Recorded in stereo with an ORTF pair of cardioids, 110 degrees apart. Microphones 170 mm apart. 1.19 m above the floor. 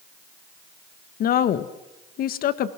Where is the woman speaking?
65° left, 1.4 m.